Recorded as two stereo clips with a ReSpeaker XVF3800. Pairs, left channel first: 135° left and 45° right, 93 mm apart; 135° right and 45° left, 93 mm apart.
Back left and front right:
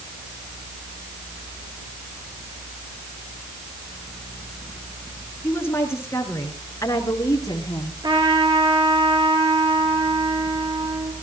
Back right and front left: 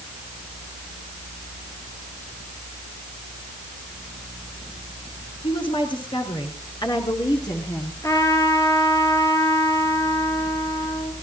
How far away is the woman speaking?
About 5 m.